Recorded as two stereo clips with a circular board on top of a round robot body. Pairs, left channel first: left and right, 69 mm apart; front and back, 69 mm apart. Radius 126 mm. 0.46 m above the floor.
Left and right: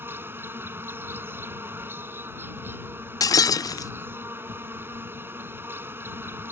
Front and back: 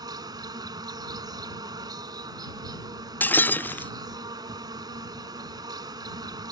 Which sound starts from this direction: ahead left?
Breaking glass, at 3.2 s.